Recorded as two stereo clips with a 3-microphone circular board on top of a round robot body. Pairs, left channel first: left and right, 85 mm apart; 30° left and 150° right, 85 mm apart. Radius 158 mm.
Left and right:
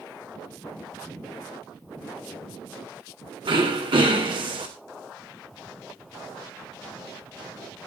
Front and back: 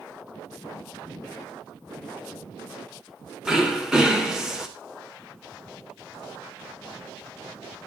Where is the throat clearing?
65° right, 3 m.